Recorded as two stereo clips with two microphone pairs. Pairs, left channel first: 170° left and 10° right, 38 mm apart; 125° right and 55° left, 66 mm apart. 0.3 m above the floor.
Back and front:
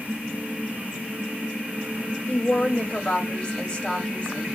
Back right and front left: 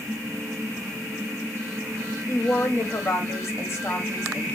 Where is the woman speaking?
135° right, 1.6 m.